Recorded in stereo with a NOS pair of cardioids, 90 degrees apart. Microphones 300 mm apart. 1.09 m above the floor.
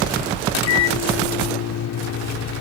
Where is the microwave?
60° left.